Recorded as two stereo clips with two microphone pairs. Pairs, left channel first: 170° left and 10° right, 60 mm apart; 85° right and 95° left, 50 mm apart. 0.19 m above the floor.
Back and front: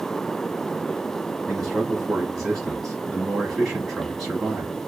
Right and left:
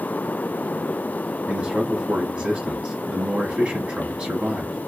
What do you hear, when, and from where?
1.5 s a man speaking: 80° left, 1.1 m